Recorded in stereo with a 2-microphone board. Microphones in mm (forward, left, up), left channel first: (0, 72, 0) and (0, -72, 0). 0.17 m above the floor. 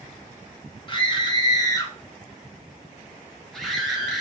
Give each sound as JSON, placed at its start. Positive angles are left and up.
{"t": 0.9, "sound": "a scream", "side_deg": 35, "distance_m": 1.5}